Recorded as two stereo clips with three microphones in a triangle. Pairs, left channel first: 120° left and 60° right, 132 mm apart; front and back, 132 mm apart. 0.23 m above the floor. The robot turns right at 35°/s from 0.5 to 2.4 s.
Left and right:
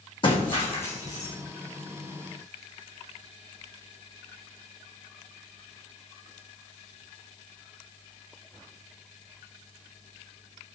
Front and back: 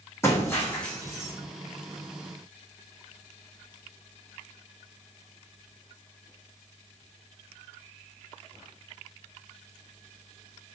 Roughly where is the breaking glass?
Left.